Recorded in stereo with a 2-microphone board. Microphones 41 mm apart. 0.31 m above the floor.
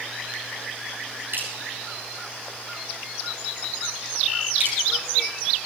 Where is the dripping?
70° right (ahead or behind), 8.5 m.